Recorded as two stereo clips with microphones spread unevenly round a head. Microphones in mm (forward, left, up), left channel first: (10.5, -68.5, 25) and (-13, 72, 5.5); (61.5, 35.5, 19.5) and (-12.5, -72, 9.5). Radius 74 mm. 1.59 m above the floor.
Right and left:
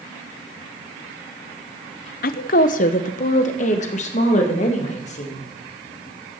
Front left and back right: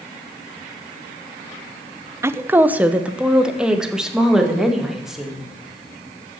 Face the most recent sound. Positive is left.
turn(degrees=-35)